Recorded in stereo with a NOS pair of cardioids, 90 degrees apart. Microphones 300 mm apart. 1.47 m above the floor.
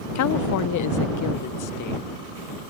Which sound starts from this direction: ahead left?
A woman speaking, at 0.1 s.